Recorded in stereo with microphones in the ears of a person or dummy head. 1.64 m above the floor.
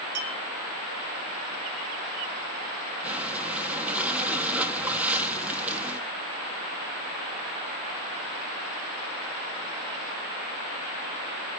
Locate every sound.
0.1 s a clink: 85° right, 5.5 m
3.0 s breathing: 10° right (ahead or behind), 1.8 m